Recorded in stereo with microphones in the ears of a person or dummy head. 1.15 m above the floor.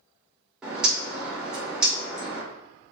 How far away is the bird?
About 0.7 m.